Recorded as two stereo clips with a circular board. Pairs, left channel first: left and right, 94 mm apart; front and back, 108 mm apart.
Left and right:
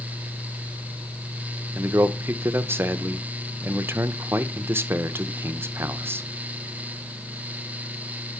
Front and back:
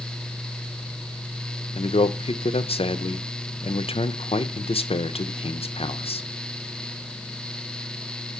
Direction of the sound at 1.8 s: 25° right.